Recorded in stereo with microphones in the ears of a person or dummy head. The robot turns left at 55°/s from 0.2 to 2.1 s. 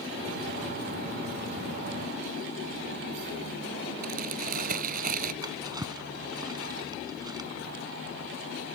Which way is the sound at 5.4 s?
15° right (ahead or behind).